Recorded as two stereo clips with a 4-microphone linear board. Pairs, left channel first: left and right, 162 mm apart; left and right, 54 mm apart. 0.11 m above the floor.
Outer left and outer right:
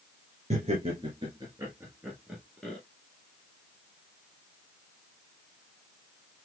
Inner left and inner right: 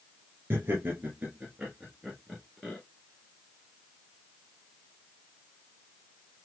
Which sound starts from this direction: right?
Laughter, at 0.5 s.